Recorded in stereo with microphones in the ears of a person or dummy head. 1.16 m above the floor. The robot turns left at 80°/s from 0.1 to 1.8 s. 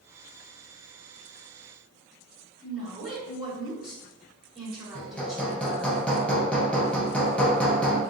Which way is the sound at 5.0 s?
5° left (ahead or behind).